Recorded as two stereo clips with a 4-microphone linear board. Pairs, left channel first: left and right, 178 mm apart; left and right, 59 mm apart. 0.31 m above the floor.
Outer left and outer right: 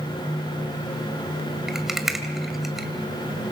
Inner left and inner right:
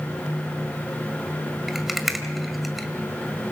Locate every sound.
1.7 s a rattle: centre (ahead or behind), 1.7 m